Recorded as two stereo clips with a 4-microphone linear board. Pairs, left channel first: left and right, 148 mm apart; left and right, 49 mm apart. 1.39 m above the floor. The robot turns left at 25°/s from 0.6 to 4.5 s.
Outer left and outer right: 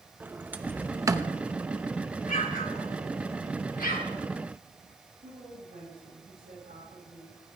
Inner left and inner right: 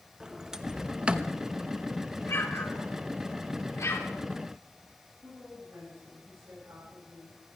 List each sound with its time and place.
0.2 s a sliding door: 10° right (ahead or behind), 0.9 m; by 1.4 s 30° right (ahead or behind), 0.9 m
2.3 s an explosion: 60° left (ahead or behind), 3 m; by 4.1 s 75° left (ahead or behind), 3 m
5.2 s a woman speaking: 70° right (ahead or behind), 8.5 m